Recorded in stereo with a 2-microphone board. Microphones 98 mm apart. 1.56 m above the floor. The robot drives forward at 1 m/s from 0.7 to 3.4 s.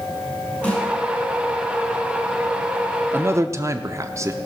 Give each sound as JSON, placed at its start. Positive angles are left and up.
{"t": 0.6, "sound": "a snare drum", "side_deg": 15, "distance_m": 5.5}
{"t": 3.1, "sound": "a man speaking", "side_deg": -20, "distance_m": 0.7}